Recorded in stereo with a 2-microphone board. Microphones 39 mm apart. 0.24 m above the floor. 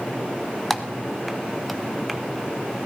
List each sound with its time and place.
0.7 s typing on a keyboard: centre (ahead or behind), 0.8 m